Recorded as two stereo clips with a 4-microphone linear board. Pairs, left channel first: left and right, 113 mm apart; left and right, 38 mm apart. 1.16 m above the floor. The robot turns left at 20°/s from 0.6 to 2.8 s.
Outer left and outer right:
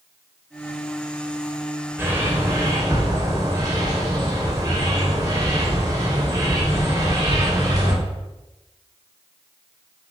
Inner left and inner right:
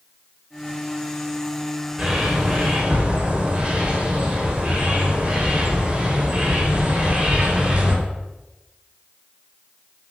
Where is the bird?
20° right (ahead or behind), 3 m; by 7.9 s 35° right (ahead or behind), 3 m.